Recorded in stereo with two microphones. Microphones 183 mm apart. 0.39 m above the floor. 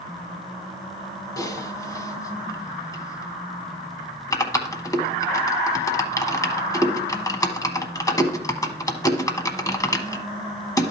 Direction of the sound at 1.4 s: 20° left (ahead or behind).